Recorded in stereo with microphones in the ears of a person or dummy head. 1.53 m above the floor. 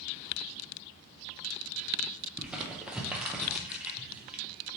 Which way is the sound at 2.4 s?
5° right (ahead or behind).